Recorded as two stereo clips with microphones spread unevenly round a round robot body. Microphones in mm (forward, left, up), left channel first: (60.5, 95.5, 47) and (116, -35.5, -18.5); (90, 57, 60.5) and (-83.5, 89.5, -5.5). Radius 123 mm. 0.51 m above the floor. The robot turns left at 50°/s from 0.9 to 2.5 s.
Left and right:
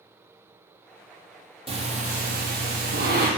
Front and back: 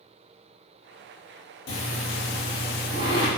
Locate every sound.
1.7 s breathing: 10° right, 2.5 m; by 3.3 s 50° right, 2.5 m